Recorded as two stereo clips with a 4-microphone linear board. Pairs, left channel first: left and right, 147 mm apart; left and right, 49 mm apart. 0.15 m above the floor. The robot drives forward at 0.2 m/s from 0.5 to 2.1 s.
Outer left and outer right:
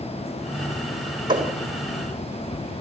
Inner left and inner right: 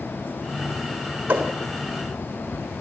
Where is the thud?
30° right (ahead or behind), 3.5 m.